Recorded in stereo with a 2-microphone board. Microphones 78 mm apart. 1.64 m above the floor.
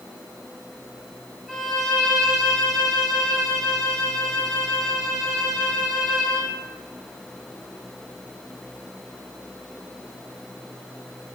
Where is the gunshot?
No gunshot in this recording.